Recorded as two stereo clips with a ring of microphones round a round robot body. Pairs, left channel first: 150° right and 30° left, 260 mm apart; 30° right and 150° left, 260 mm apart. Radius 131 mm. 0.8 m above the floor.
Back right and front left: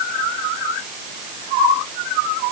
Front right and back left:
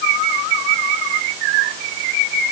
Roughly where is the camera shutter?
No camera shutter in this recording.